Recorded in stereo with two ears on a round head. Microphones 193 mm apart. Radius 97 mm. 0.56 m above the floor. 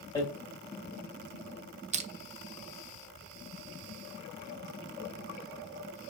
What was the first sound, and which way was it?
Hammering, 15° left (ahead or behind).